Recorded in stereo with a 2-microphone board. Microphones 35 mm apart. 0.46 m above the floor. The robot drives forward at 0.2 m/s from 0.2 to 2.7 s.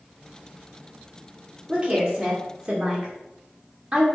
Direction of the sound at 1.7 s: 30° right (ahead or behind).